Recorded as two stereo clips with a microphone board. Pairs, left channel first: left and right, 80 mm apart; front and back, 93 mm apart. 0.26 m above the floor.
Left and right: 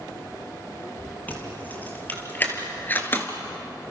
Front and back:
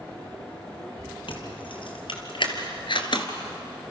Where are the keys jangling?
20° left, 4 m; by 3.3 s 25° left, 2 m.